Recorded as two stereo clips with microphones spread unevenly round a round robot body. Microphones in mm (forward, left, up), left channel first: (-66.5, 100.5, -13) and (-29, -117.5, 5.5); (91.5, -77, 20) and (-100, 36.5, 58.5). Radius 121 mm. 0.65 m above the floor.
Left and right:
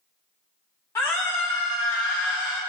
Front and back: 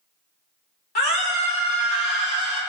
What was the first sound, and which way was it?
A scream, 20° left.